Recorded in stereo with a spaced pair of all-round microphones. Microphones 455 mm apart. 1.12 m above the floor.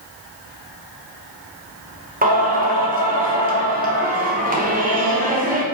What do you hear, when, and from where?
2.2 s singing: 20° right (ahead or behind), 0.6 m